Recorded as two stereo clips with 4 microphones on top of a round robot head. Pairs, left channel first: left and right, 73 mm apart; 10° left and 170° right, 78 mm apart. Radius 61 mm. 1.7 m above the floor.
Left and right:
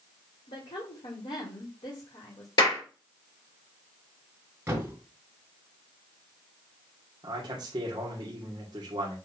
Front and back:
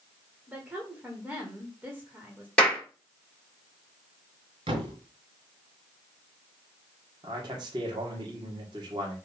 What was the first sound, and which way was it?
A woman speaking, 110° left.